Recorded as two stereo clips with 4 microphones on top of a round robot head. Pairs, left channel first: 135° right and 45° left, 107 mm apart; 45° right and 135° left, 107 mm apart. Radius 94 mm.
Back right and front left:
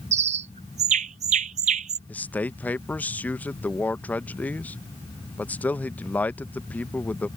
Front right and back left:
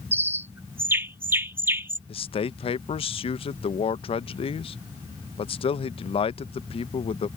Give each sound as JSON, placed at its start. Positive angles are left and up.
{"t": 0.1, "sound": "a bird", "azimuth_deg": 65}
{"t": 2.1, "sound": "a man speaking", "azimuth_deg": -60}